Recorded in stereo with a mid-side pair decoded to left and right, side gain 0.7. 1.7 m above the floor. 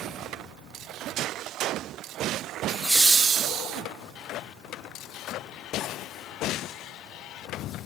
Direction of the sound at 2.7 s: 5° left.